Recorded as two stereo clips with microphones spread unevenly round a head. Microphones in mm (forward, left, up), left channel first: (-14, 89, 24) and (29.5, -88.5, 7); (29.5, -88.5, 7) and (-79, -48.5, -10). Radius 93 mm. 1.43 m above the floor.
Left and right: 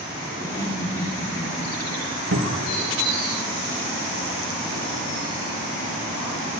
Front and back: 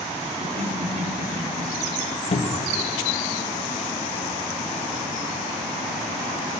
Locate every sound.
0.4 s laughter: straight behind, 4.5 m
2.3 s a cupboard door: 55° right, 2 m